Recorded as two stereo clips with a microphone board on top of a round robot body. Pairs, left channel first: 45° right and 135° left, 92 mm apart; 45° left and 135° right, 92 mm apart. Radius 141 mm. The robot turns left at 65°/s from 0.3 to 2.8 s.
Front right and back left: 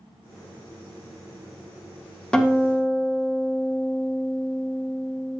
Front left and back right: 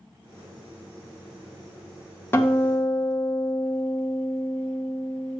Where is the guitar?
25° left, 1.1 m; by 5.4 s 5° right, 1.1 m.